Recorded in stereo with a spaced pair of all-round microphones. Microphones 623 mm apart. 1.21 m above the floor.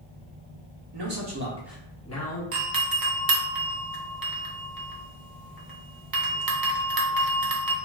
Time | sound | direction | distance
0.9 | a man speaking | 45° right (ahead or behind) | 0.8 m
2.5 | a doorbell | 35° right (ahead or behind) | 0.5 m